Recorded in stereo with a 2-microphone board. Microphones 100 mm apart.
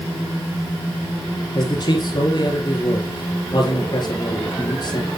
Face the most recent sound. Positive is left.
turn(degrees=45)  # may be behind; listen again after turning